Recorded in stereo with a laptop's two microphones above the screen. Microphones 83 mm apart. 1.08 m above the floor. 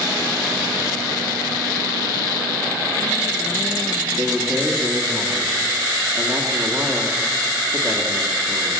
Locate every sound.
4.2 s a man speaking: 5° right (ahead or behind), 1.5 m